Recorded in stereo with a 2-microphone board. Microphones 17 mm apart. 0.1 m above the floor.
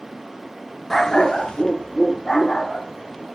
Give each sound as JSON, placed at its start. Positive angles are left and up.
{"t": 0.9, "sound": "a dog barking", "side_deg": 20, "distance_m": 0.7}